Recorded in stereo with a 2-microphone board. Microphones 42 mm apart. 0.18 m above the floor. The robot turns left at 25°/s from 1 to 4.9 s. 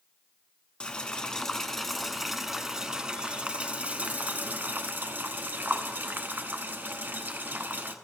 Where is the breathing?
I don't hear breathing.